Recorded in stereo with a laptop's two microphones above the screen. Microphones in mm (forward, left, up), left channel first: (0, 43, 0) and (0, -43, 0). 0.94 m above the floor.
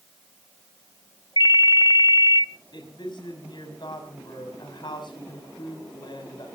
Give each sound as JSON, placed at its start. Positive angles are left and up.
{"t": 1.4, "sound": "a ringtone", "side_deg": 65, "distance_m": 0.6}
{"t": 2.7, "sound": "a woman speaking", "side_deg": 60, "distance_m": 5.5}